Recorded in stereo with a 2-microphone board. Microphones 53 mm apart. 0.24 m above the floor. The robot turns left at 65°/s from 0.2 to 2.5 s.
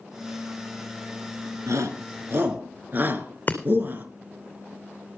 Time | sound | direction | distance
1.7 | a shout | 70° right (ahead or behind) | 3.5 m
3.5 | breaking glass | 30° left (ahead or behind) | 2.5 m